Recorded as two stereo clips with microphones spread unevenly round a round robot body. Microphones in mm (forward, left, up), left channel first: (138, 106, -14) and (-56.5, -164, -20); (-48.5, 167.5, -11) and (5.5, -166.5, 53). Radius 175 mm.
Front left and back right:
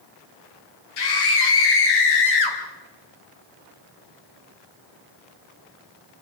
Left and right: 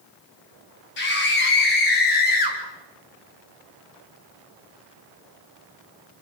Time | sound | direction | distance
1.0 | a scream | 40° left | 6 m